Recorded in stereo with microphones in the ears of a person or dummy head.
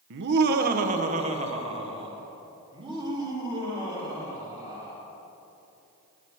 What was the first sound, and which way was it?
Laughter, 65° right (ahead or behind).